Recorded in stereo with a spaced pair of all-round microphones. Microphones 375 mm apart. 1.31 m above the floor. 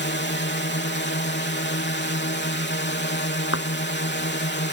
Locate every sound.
0.0 s a drone: 30° left (ahead or behind)
3.5 s a thud: 35° left (ahead or behind)